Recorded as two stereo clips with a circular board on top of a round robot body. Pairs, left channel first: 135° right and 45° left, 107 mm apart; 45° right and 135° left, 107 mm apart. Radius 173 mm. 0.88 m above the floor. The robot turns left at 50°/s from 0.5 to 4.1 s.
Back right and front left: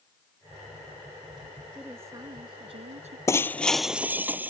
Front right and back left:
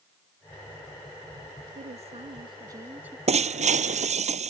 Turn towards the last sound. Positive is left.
turn(degrees=120)